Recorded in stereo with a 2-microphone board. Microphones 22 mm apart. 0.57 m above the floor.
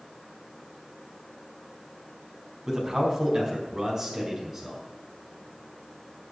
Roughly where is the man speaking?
Right.